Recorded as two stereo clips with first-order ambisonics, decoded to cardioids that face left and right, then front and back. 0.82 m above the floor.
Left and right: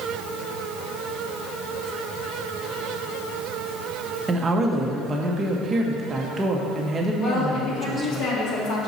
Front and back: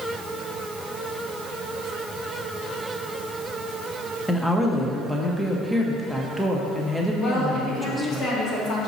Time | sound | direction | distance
4.3 | a woman speaking | 85° right | 0.7 m
7.2 | a woman speaking | 55° left | 1.9 m